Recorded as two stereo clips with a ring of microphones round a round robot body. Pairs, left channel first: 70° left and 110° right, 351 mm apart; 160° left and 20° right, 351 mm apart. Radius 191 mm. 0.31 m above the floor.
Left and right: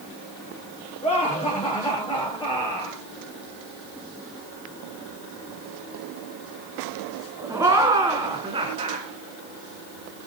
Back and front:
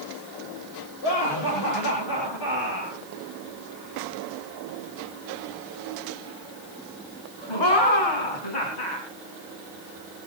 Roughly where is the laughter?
Behind left.